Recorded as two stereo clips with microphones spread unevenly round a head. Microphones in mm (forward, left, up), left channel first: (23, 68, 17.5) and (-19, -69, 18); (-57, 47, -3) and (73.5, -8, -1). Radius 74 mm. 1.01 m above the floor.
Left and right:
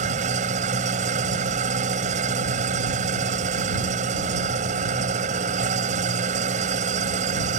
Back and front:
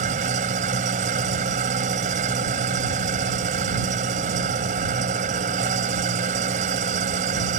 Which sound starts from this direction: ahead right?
An engine running, at 0.0 s.